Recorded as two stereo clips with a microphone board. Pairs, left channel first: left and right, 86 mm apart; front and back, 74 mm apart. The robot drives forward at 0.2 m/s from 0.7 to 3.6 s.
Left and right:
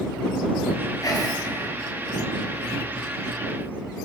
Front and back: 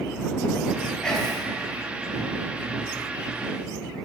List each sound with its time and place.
1.0 s whispering: 75° left, 0.8 m; by 1.4 s 85° left, 0.8 m